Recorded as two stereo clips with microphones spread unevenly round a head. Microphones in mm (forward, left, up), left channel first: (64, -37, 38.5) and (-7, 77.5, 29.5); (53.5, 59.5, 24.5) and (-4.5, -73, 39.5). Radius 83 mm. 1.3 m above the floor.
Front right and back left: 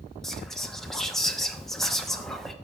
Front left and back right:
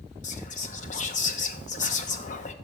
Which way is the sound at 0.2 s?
30° left.